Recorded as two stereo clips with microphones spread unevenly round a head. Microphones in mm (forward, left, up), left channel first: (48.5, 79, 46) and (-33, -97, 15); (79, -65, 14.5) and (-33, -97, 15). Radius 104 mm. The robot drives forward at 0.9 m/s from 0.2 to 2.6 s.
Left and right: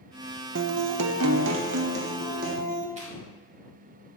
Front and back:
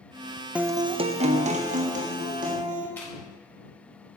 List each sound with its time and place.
0.6 s a guitar: 85° right, 0.6 m; by 2.9 s 165° right, 1.9 m
3.0 s chewing: 60° right, 3 m